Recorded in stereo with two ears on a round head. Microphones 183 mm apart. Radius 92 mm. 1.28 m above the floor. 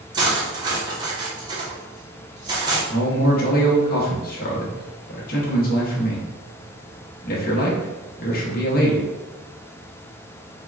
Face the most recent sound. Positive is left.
turn(degrees=45)  # may be behind; listen again after turning